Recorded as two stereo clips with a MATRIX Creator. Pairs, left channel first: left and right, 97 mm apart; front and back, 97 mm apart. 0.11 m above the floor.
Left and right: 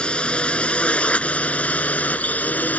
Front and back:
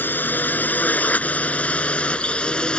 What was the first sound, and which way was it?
A drone, 30° left.